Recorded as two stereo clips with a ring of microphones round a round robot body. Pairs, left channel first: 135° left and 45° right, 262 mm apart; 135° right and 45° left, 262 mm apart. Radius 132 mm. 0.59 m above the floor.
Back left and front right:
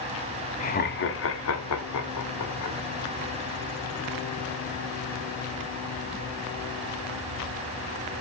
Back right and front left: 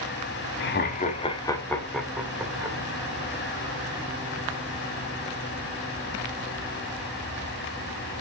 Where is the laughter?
170° right, 1.3 m; by 2.8 s 125° left, 2.5 m.